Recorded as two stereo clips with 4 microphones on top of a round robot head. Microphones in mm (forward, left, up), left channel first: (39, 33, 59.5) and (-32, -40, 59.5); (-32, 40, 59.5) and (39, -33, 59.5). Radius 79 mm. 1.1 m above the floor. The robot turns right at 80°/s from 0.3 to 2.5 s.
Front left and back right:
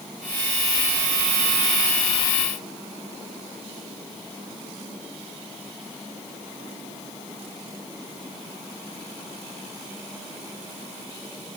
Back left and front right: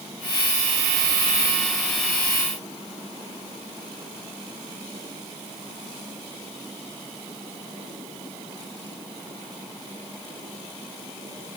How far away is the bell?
I don't hear a bell.